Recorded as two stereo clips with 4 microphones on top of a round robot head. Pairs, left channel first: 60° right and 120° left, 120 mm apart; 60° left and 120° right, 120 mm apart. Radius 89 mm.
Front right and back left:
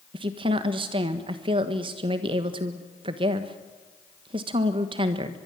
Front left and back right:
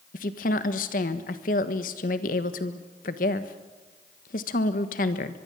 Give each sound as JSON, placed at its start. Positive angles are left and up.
{"t": 0.1, "sound": "a woman speaking", "azimuth_deg": 70, "distance_m": 1.4}